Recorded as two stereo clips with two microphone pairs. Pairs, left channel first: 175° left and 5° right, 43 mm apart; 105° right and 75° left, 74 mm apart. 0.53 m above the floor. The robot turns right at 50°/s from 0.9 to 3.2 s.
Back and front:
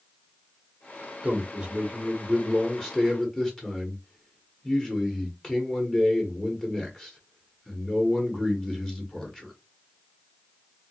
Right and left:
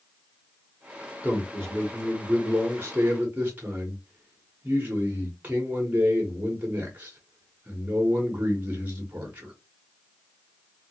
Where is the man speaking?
20° left, 1.2 m; by 9.5 s 120° left, 1.2 m.